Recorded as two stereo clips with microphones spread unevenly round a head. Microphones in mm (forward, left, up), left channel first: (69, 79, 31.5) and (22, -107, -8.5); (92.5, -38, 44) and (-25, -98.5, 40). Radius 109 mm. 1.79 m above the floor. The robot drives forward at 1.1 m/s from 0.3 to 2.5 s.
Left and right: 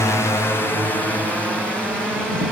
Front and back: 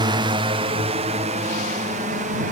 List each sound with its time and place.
0.0 s a drone: 160° left; by 2.5 s 165° left